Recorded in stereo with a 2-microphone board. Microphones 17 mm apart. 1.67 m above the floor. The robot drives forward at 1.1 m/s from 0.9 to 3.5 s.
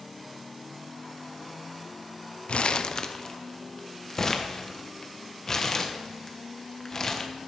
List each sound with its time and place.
2.5 s crumpling: 65° left (ahead or behind), 0.6 m; by 7.3 s 20° left (ahead or behind), 1.4 m